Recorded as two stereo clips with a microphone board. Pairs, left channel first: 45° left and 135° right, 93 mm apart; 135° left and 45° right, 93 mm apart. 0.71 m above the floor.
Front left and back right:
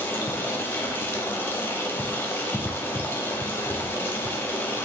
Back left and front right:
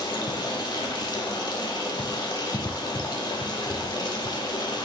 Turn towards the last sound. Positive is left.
turn(degrees=110)